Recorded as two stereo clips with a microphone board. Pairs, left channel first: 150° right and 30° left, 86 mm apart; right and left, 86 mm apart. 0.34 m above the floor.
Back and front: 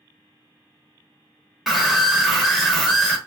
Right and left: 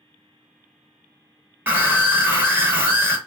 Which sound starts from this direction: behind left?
A scream, at 1.7 s.